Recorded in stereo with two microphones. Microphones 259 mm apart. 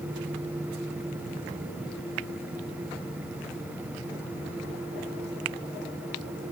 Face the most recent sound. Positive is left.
No sound to turn to.